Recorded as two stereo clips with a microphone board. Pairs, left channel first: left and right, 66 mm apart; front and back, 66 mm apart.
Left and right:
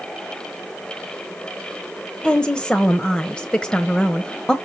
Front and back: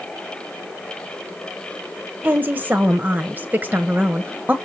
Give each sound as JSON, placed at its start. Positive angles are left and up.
{"t": 2.2, "sound": "a woman speaking", "azimuth_deg": 150, "distance_m": 1.1}